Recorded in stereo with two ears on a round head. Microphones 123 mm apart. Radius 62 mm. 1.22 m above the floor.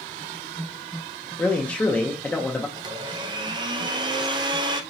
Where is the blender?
30° right (ahead or behind), 0.6 m.